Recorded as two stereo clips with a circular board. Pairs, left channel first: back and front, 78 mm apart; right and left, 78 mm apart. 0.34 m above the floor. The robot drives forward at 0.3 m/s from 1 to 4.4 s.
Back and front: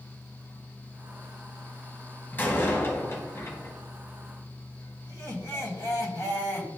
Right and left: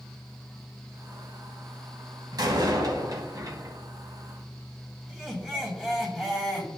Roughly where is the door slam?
Behind left.